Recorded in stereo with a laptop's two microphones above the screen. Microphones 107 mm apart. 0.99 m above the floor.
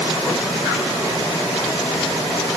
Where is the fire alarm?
No fire alarm in this recording.